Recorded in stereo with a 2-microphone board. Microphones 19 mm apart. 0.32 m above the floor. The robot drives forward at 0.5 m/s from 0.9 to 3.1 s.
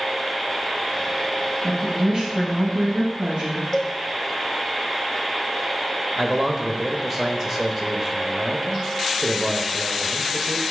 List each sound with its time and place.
1.6 s a woman speaking: 40° right (ahead or behind), 2.5 m; by 3.6 s 50° right (ahead or behind), 2.5 m
3.7 s a cowbell: 15° left (ahead or behind), 1.3 m
6.2 s a man speaking: 20° right (ahead or behind), 0.9 m